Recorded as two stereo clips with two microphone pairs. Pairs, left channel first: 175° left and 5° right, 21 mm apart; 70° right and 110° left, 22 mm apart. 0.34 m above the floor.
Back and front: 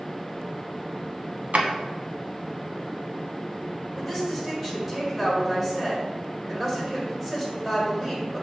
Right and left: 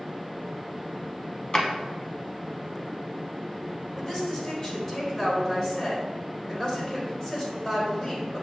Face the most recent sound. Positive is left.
turn(degrees=-75)